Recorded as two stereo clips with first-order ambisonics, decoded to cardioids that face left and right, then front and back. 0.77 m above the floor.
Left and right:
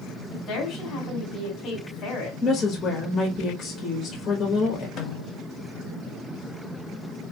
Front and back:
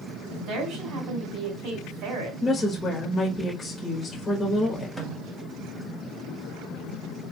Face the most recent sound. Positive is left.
turn(degrees=95)